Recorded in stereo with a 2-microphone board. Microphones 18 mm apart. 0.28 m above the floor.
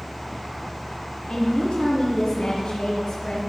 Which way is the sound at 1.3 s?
55° left (ahead or behind).